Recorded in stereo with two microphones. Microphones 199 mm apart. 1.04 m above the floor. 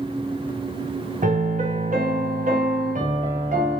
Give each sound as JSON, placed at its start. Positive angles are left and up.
{"t": 1.2, "sound": "a piano", "side_deg": -45, "distance_m": 0.7}